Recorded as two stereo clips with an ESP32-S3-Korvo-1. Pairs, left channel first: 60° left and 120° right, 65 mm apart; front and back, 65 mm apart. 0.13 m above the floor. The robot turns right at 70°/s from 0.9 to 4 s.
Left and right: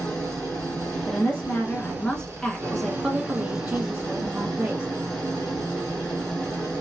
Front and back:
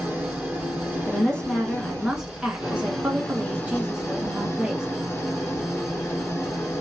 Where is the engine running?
135° left, 1.7 m; by 6.8 s 10° right, 1.7 m.